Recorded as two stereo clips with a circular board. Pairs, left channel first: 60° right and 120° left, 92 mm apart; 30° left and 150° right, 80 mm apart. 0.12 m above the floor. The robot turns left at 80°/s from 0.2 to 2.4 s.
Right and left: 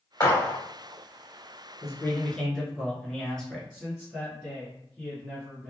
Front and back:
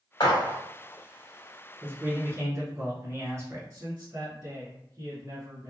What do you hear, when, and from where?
0.2 s a gunshot: 5° right, 1.9 m; by 0.6 s 40° right, 1.9 m
1.8 s a man speaking: 95° right, 1.4 m; by 3.6 s 140° right, 1.4 m
3.7 s a man speaking: 170° right, 1.5 m